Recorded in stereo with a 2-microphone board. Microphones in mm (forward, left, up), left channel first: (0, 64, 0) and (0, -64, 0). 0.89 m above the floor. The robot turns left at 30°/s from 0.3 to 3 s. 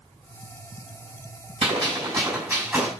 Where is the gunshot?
135° right, 5 m; by 2.9 s 175° right, 5 m.